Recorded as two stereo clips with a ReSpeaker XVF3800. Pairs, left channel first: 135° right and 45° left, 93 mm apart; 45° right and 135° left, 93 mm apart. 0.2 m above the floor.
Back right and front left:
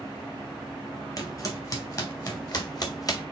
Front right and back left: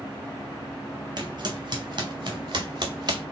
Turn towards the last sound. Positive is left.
turn(degrees=175)